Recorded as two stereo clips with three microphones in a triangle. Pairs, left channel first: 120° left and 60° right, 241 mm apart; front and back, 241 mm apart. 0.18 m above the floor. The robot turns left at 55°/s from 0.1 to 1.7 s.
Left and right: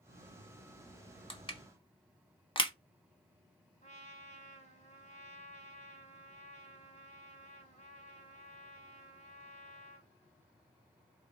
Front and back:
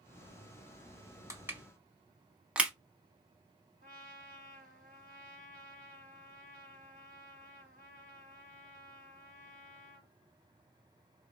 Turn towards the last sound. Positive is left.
turn(degrees=155)